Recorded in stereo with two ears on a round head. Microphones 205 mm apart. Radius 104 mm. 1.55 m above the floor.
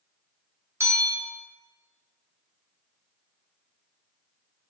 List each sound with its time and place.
0.8 s a bell: 10° right (ahead or behind), 0.7 m